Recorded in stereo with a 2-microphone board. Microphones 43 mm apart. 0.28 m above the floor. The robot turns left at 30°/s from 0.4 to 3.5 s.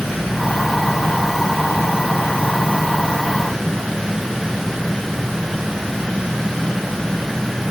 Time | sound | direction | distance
0.0 | an insect | 115° left | 1.8 m